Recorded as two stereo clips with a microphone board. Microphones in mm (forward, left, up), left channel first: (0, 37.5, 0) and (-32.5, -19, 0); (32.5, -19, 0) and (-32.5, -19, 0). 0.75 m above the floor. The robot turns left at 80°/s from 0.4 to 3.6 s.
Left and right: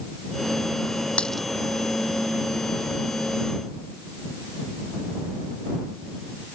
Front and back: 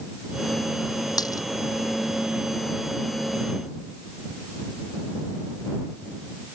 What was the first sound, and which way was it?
A dropped coin, 10° right.